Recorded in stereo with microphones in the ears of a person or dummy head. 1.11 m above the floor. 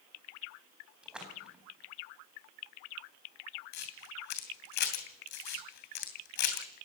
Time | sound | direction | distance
1.0 | a splash | 5° right (ahead or behind) | 4.5 m
3.7 | a camera shutter | 60° left (ahead or behind) | 2.5 m